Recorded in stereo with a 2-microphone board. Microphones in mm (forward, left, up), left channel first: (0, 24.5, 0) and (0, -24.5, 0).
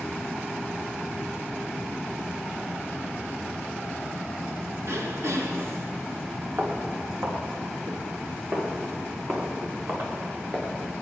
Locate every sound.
4.8 s throat clearing: 65° right (ahead or behind), 1.5 m
6.6 s footsteps: 70° right (ahead or behind), 5 m; by 11.0 s 40° right (ahead or behind), 5 m